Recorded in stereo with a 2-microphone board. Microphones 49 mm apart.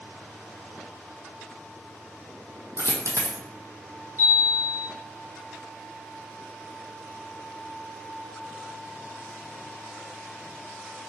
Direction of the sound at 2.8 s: 80° right.